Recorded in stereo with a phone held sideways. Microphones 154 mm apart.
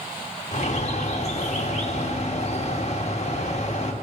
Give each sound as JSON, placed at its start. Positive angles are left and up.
{"t": 0.5, "sound": "a bird", "side_deg": 50, "distance_m": 1.8}